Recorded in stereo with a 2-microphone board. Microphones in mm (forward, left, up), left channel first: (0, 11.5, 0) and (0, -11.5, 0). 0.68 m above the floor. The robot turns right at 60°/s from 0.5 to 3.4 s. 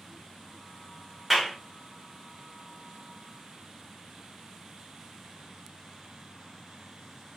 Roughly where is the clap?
Centre.